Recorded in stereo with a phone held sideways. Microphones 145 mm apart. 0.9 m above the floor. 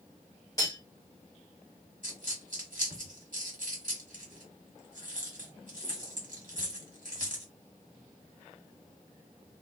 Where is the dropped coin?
65° right (ahead or behind), 1.4 m.